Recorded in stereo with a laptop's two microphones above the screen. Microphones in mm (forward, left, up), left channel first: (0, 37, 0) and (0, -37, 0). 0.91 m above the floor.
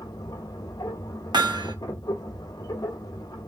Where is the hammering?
80° right, 0.7 m.